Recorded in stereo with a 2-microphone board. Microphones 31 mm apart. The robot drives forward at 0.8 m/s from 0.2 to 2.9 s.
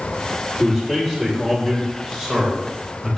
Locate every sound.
0.6 s a man speaking: 20° left (ahead or behind), 2.5 m; by 3.2 s 10° left (ahead or behind), 4 m